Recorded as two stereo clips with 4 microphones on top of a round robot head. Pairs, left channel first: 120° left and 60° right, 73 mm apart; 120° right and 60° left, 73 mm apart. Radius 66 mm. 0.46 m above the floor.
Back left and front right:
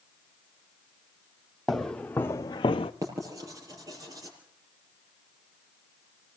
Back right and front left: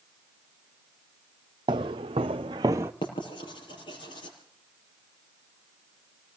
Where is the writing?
105° right, 6 m.